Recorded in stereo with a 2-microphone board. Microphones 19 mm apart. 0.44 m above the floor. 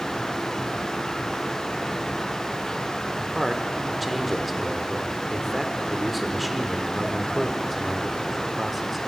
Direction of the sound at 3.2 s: Centre (ahead or behind).